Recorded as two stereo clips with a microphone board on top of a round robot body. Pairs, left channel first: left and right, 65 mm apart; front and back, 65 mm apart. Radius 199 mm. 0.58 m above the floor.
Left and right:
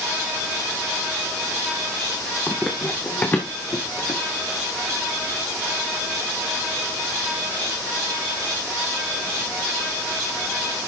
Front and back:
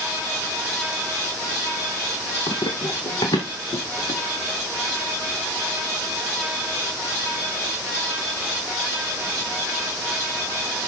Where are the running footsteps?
5° left, 1.3 m; by 4.2 s 35° left, 3 m.